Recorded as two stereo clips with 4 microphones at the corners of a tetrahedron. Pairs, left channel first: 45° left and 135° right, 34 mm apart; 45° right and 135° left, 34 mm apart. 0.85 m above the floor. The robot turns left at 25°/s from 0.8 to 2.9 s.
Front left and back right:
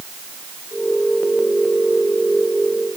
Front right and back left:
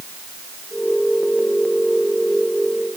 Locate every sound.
Only background noise.